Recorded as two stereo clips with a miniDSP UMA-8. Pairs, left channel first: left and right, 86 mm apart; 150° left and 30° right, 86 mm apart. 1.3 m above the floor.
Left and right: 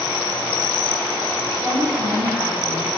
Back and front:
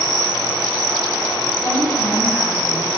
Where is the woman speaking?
170° left, 4.5 m; by 2.9 s straight behind, 6 m.